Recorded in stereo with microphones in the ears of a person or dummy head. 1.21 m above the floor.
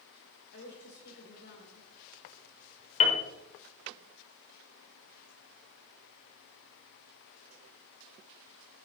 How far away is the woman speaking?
About 3.5 m.